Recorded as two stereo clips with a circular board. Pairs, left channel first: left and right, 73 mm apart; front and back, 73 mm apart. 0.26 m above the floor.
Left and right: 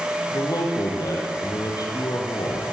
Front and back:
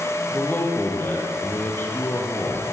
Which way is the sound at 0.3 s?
60° left.